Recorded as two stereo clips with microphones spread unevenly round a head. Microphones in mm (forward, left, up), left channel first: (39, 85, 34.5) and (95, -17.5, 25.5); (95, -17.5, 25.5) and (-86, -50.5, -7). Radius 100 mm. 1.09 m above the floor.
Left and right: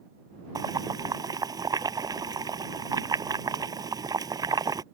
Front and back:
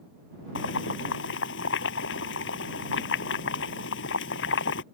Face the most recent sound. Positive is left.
turn(degrees=-5)